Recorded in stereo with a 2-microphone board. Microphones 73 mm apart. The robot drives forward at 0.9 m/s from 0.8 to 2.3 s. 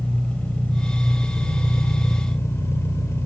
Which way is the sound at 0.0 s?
20° left (ahead or behind).